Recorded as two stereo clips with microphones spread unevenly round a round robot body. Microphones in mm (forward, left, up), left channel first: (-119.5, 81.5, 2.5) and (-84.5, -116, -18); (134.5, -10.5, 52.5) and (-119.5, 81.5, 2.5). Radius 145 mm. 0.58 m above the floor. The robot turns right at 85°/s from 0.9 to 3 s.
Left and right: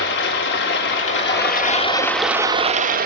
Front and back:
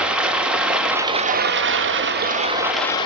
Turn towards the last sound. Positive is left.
turn(degrees=-100)